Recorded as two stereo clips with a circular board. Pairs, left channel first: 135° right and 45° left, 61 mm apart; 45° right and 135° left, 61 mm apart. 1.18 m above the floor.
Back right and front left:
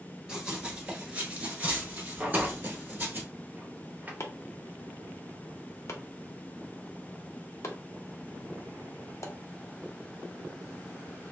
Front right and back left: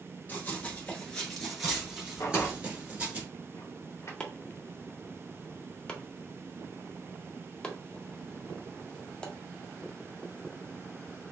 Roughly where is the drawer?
Ahead.